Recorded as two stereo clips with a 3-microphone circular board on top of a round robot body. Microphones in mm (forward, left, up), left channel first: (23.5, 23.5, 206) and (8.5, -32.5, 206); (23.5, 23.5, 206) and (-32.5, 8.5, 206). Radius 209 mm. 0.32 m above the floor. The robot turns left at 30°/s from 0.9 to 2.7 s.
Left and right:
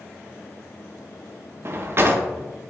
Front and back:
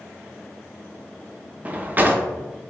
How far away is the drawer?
About 0.5 m.